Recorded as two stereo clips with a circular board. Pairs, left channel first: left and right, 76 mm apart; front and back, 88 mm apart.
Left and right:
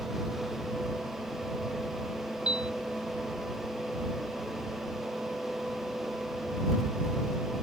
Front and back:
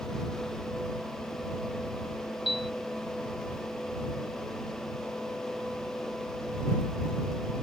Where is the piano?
15° right.